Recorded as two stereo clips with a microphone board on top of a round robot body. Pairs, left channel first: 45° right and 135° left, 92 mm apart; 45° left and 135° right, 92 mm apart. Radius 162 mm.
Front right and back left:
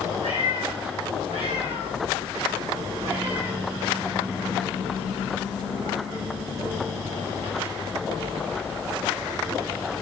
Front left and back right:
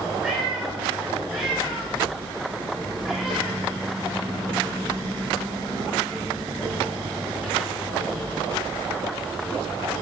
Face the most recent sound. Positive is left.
turn(degrees=140)